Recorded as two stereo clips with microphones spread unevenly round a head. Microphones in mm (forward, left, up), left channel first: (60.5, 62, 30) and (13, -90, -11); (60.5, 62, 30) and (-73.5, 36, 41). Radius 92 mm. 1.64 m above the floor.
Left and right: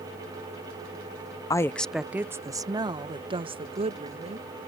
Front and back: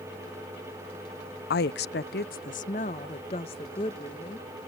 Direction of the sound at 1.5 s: 10° left.